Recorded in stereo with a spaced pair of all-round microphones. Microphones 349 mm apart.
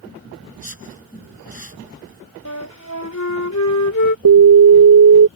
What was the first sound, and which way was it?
A whoosh, 90° right.